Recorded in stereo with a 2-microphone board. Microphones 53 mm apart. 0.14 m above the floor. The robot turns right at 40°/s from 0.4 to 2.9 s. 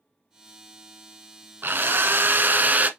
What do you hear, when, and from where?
1.6 s a drill: 100° right, 1.0 m; by 2.9 s 50° right, 1.0 m